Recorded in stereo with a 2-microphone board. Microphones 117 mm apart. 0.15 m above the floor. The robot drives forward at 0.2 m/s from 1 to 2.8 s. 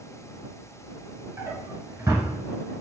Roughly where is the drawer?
Right.